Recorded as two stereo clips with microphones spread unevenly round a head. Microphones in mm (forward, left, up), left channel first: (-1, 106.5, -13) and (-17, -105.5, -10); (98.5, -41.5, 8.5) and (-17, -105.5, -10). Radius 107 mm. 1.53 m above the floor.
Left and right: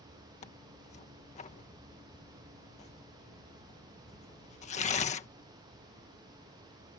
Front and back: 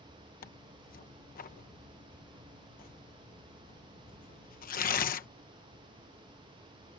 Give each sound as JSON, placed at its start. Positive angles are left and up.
{"t": 0.4, "sound": "tearing paper", "azimuth_deg": 25}